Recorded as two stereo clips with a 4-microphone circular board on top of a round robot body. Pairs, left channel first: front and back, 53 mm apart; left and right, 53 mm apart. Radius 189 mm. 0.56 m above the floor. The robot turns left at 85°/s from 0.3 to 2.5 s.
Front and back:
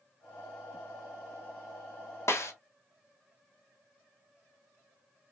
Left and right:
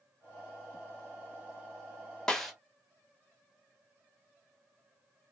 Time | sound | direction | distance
2.3 | a snare drum | 15° left | 1.1 m